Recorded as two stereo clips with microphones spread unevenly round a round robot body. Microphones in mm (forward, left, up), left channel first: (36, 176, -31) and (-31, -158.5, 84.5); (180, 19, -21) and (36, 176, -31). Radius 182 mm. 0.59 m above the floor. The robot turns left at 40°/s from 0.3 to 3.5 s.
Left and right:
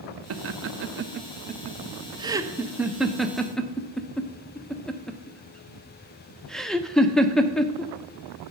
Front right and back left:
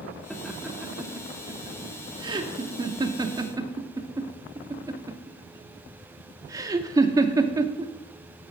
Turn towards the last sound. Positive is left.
turn(degrees=100)